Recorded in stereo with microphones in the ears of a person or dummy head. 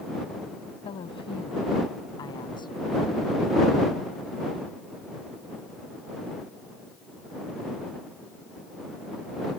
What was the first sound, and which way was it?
A woman speaking, 35° left (ahead or behind).